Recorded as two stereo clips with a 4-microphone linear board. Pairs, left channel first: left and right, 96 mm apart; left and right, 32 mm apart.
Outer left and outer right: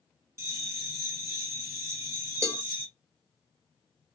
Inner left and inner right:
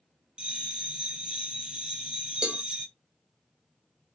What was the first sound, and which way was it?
A bell, 30° right (ahead or behind).